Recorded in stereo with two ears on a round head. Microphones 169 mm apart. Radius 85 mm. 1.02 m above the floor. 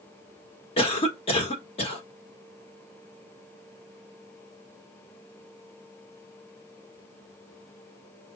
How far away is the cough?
About 0.9 m.